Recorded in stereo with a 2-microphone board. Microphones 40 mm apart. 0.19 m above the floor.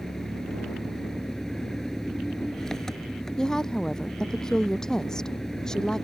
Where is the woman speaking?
20° left (ahead or behind).